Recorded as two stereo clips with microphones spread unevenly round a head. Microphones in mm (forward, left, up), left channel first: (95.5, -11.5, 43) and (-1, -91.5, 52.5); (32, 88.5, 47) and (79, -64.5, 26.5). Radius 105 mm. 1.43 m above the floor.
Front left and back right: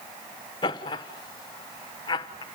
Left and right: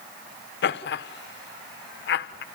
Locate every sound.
0.6 s laughter: 100° left, 1.3 m